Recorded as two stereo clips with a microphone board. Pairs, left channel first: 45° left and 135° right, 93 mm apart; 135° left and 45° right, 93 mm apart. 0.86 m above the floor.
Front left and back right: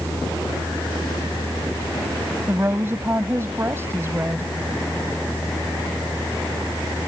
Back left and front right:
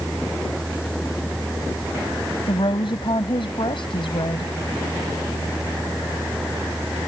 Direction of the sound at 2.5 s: 160° left.